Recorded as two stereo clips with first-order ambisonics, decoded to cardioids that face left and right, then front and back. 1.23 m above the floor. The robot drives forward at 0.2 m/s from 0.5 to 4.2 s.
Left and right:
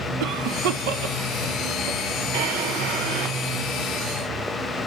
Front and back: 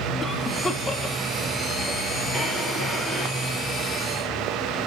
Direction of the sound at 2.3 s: 100° right.